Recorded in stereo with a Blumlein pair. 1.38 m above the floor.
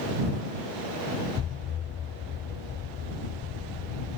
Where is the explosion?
25° left.